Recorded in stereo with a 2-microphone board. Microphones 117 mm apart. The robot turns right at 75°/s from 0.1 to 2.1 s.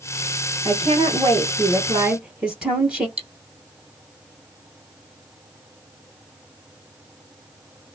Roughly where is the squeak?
No squeak in this recording.